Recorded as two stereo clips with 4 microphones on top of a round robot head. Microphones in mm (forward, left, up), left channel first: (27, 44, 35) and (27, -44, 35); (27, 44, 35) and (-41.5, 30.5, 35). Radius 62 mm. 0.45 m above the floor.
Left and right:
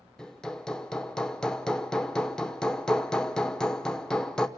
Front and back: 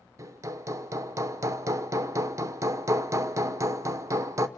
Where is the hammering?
170° left, 0.9 m.